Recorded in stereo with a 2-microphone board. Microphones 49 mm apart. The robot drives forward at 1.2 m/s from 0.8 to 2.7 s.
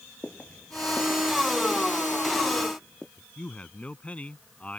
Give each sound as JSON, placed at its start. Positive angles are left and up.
{"t": 0.2, "sound": "footsteps", "side_deg": 30}
{"t": 3.2, "sound": "a man speaking", "side_deg": 25}